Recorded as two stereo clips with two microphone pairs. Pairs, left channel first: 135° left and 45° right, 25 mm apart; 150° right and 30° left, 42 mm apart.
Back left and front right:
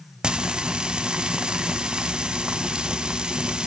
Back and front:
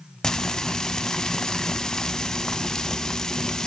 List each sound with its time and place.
0.2 s frying: 80° right, 0.6 m